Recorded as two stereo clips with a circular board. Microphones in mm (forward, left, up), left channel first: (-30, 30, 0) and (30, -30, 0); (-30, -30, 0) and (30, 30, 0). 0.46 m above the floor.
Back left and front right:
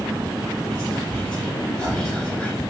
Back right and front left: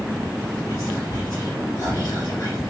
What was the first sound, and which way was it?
Whispering, 150° right.